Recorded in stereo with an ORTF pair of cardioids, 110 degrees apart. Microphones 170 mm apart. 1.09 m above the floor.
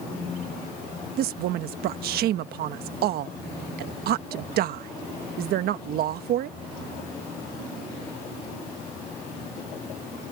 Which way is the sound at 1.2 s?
70° right.